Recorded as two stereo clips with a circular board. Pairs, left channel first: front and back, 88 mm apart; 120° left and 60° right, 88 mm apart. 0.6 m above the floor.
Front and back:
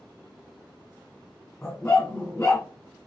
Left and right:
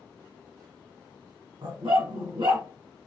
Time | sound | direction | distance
1.6 | a dog barking | 65° right | 2 m